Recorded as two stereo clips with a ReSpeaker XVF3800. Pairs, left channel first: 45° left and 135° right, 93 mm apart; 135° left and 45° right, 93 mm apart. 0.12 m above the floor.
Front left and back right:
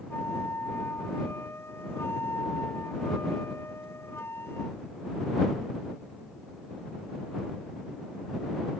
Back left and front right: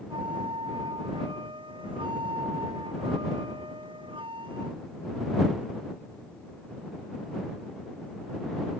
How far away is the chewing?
I don't hear chewing.